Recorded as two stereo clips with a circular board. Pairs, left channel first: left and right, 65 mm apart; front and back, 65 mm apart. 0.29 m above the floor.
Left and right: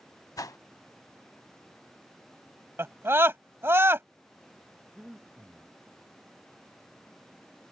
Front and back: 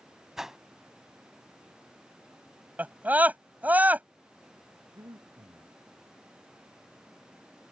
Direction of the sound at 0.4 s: 100° left.